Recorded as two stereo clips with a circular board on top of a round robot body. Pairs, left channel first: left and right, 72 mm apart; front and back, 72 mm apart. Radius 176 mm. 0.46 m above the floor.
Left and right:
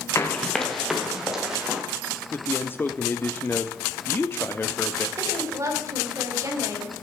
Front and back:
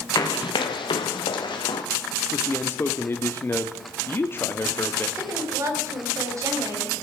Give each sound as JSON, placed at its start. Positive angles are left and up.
{"t": 0.1, "sound": "running footsteps", "azimuth_deg": 35, "distance_m": 0.5}
{"t": 2.3, "sound": "a man speaking", "azimuth_deg": 40, "distance_m": 1.1}
{"t": 5.2, "sound": "a woman speaking", "azimuth_deg": -135, "distance_m": 4.0}